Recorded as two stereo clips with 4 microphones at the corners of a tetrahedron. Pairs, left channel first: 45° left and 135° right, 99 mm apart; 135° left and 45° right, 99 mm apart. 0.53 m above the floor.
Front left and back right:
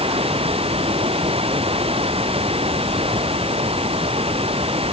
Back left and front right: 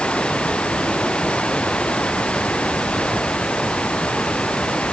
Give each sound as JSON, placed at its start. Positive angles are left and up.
{"t": 0.0, "sound": "running water", "azimuth_deg": -145}